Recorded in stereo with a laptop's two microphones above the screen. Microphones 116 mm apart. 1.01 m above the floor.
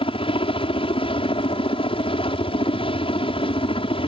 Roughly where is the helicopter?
Left.